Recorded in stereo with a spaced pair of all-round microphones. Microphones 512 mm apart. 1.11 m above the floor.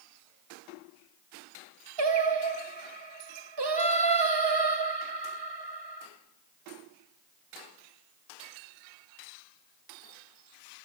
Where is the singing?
55° right (ahead or behind), 0.7 m.